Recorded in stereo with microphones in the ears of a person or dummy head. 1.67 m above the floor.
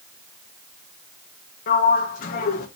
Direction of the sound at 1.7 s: 45° left (ahead or behind).